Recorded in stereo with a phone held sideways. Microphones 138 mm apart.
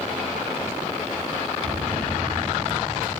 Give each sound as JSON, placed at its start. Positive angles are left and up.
{"t": 1.6, "sound": "a bell", "side_deg": -80, "distance_m": 4.0}